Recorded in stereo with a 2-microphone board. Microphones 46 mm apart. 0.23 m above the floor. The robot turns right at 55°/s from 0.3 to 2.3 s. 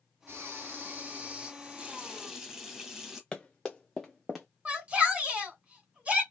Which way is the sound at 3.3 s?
10° left (ahead or behind).